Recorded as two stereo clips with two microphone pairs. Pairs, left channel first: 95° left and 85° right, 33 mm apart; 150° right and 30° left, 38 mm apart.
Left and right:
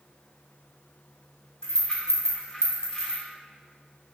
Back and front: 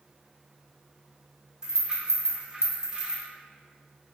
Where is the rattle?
65° left, 0.7 m.